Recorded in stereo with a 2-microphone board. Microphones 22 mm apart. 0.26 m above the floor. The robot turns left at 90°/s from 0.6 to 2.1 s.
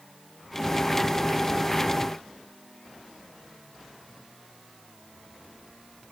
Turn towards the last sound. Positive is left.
No sound to turn to.